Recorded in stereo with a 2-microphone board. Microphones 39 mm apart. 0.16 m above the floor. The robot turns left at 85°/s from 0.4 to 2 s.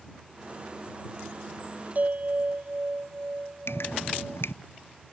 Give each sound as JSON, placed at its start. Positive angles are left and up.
{"t": 1.9, "sound": "a bell", "side_deg": -45}
{"t": 3.7, "sound": "dripping", "side_deg": 80}